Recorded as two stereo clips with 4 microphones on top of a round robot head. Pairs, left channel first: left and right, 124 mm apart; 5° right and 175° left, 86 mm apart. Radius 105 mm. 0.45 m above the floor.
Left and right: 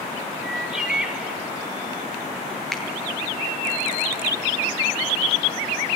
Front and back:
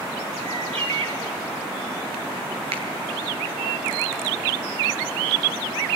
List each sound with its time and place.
0.4 s a bird: 175° right, 3.5 m
2.7 s a finger snap: straight behind, 9 m